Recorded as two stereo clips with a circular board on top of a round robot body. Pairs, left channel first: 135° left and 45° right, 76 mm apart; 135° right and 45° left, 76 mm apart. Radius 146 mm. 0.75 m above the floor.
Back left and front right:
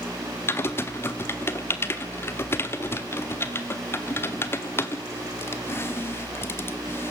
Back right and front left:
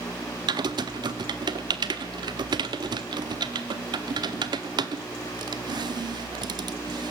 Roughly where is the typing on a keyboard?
Left.